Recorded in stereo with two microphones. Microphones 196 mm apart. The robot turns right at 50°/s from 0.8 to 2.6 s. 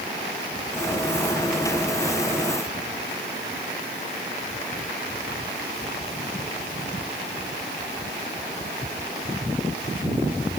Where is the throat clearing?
No throat clearing in this recording.